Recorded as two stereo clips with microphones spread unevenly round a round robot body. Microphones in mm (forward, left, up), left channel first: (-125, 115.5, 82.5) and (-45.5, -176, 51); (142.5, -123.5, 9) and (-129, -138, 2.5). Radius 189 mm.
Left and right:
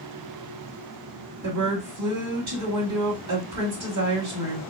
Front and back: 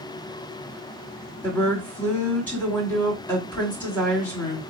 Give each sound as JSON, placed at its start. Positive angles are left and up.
{"t": 1.4, "sound": "a woman speaking", "azimuth_deg": -80, "distance_m": 2.0}